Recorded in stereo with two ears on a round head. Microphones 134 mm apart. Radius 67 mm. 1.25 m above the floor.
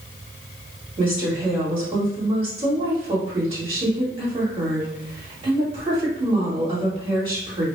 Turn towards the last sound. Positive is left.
turn(degrees=-35)  # may be behind; listen again after turning